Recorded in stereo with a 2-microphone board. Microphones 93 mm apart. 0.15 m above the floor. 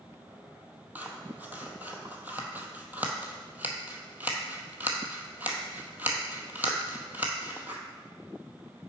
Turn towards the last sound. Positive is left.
turn(degrees=-20)  # may be behind; listen again after turning